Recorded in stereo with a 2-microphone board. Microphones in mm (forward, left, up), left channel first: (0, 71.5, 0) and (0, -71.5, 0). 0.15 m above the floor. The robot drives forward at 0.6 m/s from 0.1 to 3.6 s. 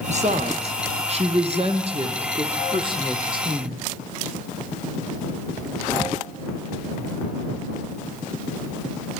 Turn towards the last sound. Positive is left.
turn(degrees=-35)  # may be behind; listen again after turning